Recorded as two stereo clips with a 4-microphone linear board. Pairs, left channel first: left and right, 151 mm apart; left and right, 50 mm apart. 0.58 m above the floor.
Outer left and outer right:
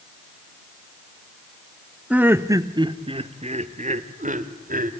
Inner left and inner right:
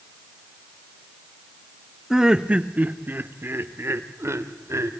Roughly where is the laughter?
Centre.